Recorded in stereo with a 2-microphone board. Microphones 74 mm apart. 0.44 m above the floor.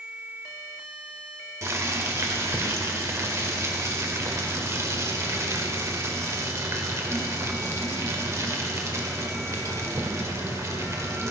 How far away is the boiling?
About 1.7 m.